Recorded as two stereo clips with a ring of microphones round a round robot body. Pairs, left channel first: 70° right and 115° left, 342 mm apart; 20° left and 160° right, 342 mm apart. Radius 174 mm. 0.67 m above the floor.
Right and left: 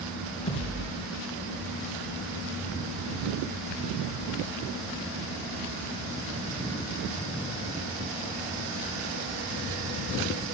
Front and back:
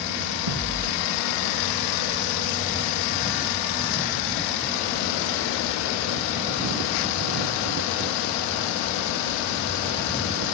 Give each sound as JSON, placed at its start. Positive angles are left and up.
{"t": 0.5, "sound": "a thud", "azimuth_deg": -140, "distance_m": 3.0}